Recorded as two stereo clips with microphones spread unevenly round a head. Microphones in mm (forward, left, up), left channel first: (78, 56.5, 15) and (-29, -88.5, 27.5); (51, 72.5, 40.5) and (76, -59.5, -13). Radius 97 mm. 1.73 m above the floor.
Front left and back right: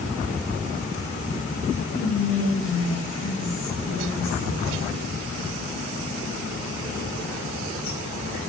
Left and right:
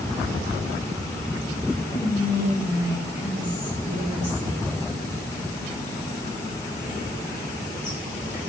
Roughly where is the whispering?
Left.